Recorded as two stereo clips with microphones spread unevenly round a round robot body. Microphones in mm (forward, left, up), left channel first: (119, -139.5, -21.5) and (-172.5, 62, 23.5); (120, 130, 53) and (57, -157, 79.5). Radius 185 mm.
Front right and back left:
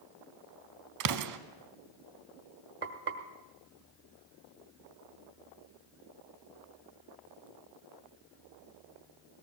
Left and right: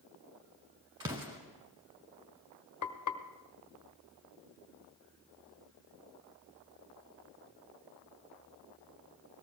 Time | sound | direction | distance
1.0 | an explosion | straight behind | 0.8 m
2.8 | frying | 80° left | 1.4 m